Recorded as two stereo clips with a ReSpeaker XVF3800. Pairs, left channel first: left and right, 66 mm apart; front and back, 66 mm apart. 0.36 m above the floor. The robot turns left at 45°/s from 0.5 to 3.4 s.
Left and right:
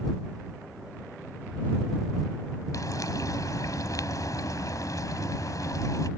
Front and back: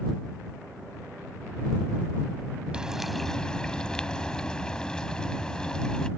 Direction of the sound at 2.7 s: 105° left.